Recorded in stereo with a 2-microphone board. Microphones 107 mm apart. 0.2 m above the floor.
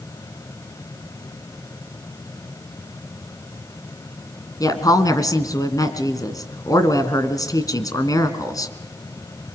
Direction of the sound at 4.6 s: 35° left (ahead or behind).